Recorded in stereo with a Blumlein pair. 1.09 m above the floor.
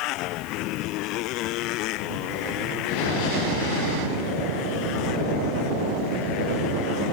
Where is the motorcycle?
40° left.